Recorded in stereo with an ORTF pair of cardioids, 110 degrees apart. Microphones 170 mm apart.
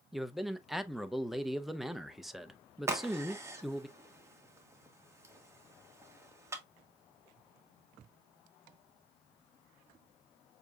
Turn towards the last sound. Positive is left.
turn(degrees=-15)